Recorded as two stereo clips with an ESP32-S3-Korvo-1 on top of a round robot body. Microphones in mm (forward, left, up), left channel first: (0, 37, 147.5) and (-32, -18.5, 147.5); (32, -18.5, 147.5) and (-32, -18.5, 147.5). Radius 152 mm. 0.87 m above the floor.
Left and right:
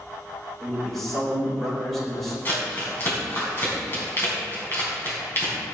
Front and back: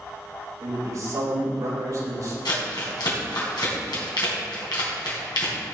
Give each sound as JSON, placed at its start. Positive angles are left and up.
{"t": 0.6, "sound": "a man speaking", "azimuth_deg": 145, "distance_m": 5.0}
{"t": 2.5, "sound": "crumpling", "azimuth_deg": 5, "distance_m": 3.5}